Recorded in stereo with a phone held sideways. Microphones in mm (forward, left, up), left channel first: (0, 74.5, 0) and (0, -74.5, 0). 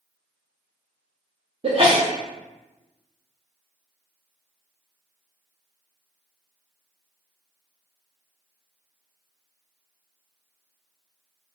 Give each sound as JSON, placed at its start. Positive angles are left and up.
{"t": 1.6, "sound": "a sneeze", "side_deg": -40, "distance_m": 0.6}